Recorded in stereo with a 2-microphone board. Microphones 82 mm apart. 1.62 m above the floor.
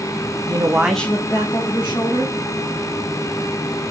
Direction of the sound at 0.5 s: 45° right (ahead or behind).